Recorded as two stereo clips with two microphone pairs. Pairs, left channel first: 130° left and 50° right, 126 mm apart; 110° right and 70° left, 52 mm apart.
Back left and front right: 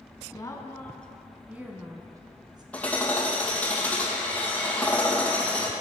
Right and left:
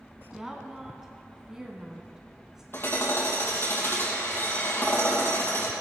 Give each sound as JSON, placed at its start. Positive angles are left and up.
{"t": 0.3, "sound": "a woman speaking", "azimuth_deg": 145, "distance_m": 1.4}
{"t": 2.7, "sound": "hammering", "azimuth_deg": -150, "distance_m": 2.5}